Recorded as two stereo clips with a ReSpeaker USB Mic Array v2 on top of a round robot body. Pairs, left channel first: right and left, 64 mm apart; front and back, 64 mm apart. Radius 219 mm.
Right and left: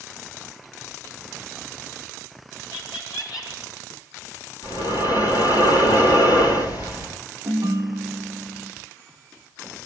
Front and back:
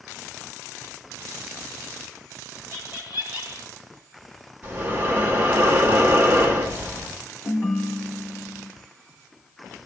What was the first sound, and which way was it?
Laughter, 115° right.